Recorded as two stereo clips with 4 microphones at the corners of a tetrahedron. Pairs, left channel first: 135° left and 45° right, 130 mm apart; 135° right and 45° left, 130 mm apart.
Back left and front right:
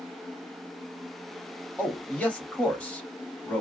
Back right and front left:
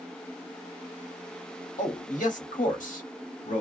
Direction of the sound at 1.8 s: 145° right.